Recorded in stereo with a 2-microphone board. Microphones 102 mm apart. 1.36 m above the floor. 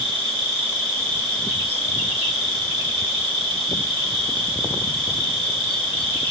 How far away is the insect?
About 1.2 m.